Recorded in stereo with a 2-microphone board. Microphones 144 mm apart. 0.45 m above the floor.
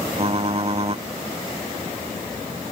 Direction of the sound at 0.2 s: 40° right (ahead or behind).